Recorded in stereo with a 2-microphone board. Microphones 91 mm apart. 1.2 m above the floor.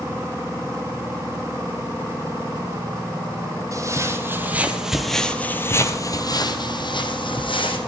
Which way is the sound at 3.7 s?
35° right (ahead or behind).